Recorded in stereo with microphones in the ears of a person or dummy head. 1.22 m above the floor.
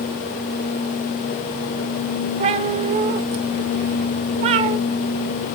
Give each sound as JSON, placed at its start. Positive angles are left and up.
{"t": 2.4, "sound": "a cat meowing", "side_deg": -40, "distance_m": 1.1}